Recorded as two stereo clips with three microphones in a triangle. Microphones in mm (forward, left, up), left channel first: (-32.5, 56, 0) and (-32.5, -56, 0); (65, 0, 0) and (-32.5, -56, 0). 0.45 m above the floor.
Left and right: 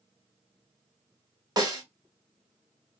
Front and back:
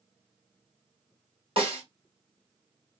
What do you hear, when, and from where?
1.6 s a snare drum: 140° right, 1.9 m